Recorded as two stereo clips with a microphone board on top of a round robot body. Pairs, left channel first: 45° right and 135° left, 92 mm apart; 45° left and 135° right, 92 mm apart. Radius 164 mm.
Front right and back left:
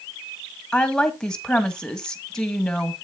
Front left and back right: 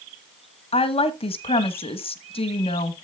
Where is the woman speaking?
40° left, 1.6 m.